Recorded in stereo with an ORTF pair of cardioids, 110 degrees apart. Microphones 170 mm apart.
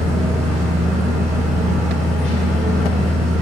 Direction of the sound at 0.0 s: 5° left.